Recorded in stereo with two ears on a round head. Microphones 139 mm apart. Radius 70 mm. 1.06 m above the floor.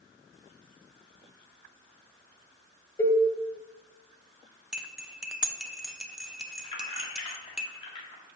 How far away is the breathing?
No breathing in this recording.